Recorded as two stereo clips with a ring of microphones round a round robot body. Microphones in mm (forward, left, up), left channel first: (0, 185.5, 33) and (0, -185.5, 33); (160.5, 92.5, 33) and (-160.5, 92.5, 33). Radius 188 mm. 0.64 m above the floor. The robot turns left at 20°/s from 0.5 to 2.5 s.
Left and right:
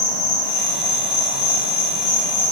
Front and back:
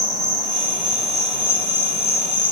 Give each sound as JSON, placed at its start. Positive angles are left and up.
{"t": 0.0, "sound": "an insect", "azimuth_deg": 100, "distance_m": 1.7}